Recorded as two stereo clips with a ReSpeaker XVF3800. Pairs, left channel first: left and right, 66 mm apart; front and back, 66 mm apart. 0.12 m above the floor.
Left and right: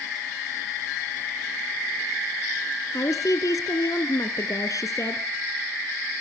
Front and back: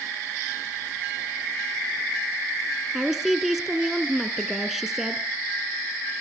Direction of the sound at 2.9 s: 100° left.